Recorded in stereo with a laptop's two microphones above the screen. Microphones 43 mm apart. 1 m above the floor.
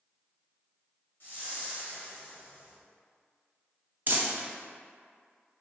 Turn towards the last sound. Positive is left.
turn(degrees=-45)  # may be behind; listen again after turning